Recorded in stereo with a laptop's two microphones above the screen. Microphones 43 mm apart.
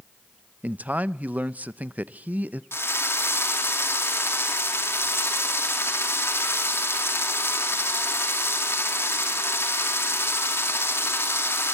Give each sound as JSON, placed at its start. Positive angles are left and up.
{"t": 0.6, "sound": "a man speaking", "side_deg": -35, "distance_m": 0.6}
{"t": 2.7, "sound": "a drill", "side_deg": 75, "distance_m": 2.5}